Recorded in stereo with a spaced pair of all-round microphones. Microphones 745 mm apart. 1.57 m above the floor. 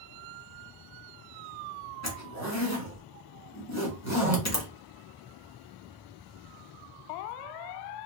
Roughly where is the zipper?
Left.